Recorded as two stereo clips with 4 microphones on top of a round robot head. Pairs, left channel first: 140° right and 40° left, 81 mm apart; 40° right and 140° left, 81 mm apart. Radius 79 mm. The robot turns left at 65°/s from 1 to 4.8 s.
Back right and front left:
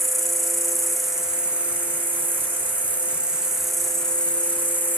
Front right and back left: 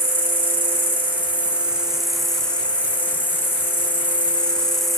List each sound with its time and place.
0.0 s an insect: 130° left, 0.8 m; by 5.0 s 120° right, 0.8 m